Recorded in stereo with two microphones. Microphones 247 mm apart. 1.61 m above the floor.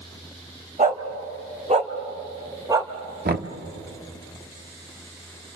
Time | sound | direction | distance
0.8 | a dog barking | 30° right (ahead or behind) | 1.9 m
3.2 | knocking | 40° right (ahead or behind) | 1.1 m